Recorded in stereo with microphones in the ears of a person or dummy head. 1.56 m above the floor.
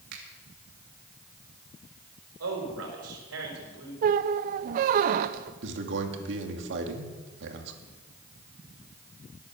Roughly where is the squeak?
Right.